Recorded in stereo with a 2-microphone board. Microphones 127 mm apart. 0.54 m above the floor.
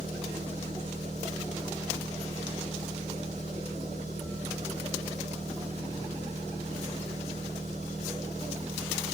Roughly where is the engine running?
Right.